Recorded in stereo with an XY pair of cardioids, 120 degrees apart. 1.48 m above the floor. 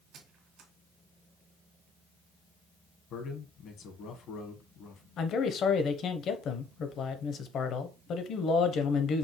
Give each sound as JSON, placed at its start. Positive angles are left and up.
{"t": 0.1, "sound": "a squeak", "azimuth_deg": -65, "distance_m": 1.9}
{"t": 3.1, "sound": "a man speaking", "azimuth_deg": 65, "distance_m": 1.3}
{"t": 5.2, "sound": "a man speaking", "azimuth_deg": 60, "distance_m": 0.9}